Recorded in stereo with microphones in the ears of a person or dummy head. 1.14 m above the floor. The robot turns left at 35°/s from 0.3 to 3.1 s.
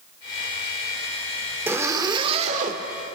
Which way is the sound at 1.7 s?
10° right.